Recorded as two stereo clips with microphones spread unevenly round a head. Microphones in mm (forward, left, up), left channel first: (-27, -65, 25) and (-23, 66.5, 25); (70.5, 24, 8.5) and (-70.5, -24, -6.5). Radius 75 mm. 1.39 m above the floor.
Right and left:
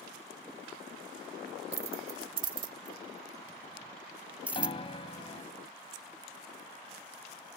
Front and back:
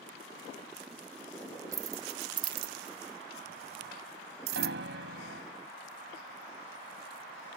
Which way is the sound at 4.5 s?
145° right.